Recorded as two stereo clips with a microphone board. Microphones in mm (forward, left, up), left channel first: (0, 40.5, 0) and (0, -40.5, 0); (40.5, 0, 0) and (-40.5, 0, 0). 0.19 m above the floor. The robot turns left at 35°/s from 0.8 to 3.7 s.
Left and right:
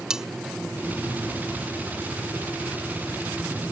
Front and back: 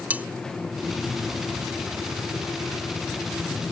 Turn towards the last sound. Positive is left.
turn(degrees=100)